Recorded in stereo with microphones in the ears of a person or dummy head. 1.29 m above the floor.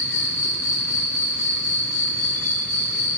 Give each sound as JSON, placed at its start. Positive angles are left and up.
{"t": 0.0, "sound": "an insect", "side_deg": 40, "distance_m": 1.8}